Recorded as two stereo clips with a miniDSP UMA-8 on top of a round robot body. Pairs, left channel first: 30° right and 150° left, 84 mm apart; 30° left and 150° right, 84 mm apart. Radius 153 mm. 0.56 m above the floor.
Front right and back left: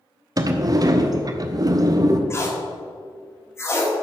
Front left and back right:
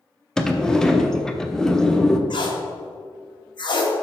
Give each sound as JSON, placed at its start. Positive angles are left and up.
{"t": 0.4, "sound": "a sliding door", "azimuth_deg": 115, "distance_m": 0.9}
{"t": 2.3, "sound": "tape being pulled", "azimuth_deg": 25, "distance_m": 1.9}